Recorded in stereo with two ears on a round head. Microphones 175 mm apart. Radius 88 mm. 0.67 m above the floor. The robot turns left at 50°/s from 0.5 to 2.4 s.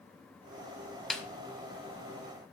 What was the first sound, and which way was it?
A snare drum, centre (ahead or behind).